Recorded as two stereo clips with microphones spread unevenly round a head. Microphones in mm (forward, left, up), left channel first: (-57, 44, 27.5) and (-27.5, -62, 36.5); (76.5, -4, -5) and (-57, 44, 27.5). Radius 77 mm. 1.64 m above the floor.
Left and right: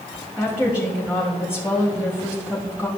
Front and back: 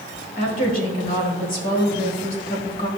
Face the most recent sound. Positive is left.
turn(degrees=5)